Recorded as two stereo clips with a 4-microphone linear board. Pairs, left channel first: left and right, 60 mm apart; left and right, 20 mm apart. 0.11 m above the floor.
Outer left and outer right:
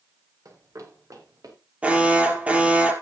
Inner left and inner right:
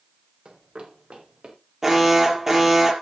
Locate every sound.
0.5 s running footsteps: 65° right (ahead or behind), 4 m; by 1.6 s 80° right, 4.5 m
1.8 s an alarm: 20° right (ahead or behind), 3 m